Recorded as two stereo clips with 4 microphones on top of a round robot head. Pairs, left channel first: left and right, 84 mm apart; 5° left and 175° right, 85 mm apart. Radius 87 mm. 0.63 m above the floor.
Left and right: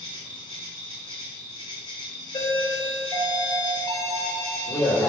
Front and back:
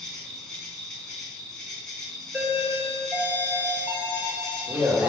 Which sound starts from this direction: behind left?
A doorbell, at 2.3 s.